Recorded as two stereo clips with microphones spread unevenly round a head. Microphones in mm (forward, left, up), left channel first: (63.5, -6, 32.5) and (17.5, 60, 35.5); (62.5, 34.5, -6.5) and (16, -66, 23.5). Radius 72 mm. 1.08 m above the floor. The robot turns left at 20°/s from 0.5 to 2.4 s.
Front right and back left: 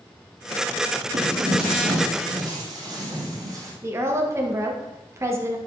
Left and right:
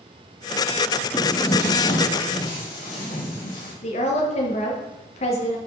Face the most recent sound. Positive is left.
turn(degrees=70)